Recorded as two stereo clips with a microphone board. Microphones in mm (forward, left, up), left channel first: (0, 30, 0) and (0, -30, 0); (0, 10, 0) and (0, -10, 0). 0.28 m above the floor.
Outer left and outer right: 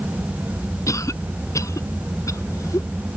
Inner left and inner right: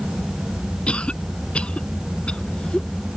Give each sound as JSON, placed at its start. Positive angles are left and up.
{"t": 0.9, "sound": "a cough", "side_deg": 65}